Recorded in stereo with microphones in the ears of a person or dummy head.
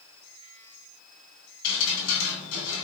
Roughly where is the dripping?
Left.